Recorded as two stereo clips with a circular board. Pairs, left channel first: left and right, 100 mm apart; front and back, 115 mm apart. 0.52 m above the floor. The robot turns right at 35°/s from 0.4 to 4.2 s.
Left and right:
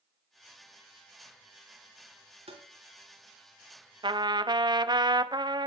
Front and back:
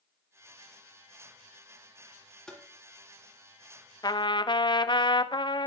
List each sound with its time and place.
2.5 s tapping: 85° right, 3.5 m; by 2.6 s 80° right, 3.5 m
4.0 s a trumpet: 50° right, 0.8 m; by 5.7 s 45° right, 0.8 m